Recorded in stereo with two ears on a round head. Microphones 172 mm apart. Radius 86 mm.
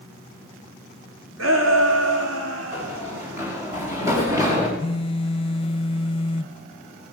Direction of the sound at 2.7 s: 10° right (ahead or behind).